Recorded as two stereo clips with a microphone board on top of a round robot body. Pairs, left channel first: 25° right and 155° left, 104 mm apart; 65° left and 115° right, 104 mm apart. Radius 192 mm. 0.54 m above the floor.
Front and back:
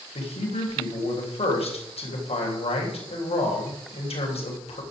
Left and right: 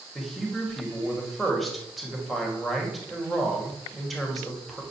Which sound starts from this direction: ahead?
A man speaking, at 0.1 s.